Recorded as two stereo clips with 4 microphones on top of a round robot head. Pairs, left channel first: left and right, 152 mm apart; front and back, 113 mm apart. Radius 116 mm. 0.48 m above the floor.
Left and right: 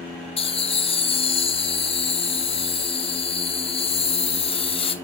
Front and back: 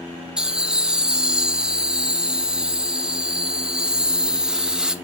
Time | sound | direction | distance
0.4 | laughter | 100° left | 1.1 m